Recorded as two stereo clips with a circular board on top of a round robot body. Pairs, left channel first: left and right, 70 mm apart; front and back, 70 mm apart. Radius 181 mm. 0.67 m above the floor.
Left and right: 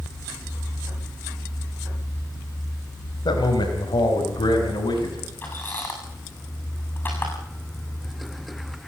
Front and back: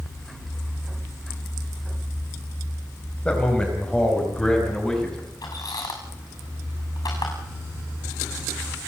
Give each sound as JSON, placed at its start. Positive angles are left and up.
{"t": 3.2, "sound": "a man speaking", "azimuth_deg": 75, "distance_m": 4.0}
{"t": 5.4, "sound": "a squeak", "azimuth_deg": 25, "distance_m": 7.5}